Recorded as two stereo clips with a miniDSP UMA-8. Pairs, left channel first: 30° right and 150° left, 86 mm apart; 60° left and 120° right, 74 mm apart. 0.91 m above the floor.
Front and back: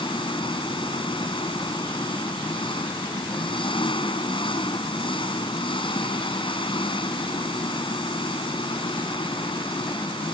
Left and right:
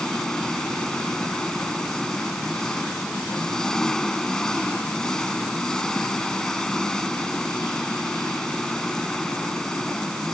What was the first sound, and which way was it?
An engine running, 25° right.